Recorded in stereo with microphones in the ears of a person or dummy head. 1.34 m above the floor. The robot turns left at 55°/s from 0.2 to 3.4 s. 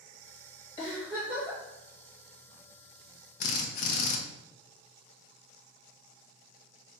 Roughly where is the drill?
Left.